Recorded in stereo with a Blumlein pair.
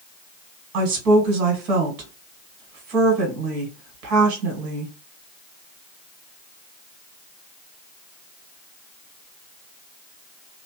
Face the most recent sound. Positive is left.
turn(degrees=-40)